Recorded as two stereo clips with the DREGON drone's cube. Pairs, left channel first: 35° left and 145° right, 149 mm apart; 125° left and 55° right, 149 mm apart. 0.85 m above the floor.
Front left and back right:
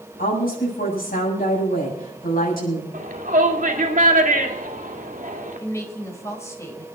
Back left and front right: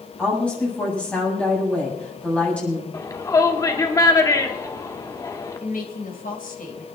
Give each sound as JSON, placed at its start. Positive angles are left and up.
{"t": 0.2, "sound": "a woman speaking", "azimuth_deg": 45, "distance_m": 7.5}
{"t": 2.9, "sound": "a shout", "azimuth_deg": -170, "distance_m": 2.0}
{"t": 5.6, "sound": "a woman speaking", "azimuth_deg": 105, "distance_m": 3.5}